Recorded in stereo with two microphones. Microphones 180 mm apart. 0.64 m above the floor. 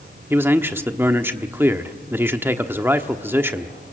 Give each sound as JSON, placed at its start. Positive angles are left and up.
{"t": 0.3, "sound": "a man speaking", "side_deg": -10, "distance_m": 1.1}